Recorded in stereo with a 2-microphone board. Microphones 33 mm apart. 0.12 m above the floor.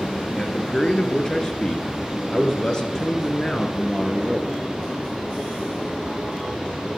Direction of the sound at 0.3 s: 20° left (ahead or behind).